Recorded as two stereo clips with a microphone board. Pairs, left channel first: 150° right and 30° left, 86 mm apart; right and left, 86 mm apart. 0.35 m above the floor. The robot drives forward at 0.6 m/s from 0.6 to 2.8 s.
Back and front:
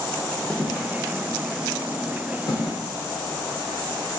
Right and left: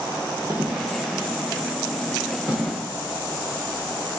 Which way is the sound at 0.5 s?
135° left.